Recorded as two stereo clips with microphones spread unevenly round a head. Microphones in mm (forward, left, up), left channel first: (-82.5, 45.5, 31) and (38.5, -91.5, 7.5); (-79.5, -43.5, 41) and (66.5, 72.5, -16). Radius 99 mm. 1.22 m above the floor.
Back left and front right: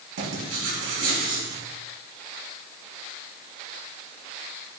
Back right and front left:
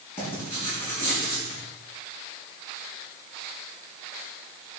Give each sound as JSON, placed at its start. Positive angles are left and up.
{"t": 0.2, "sound": "writing", "azimuth_deg": -65, "distance_m": 6.0}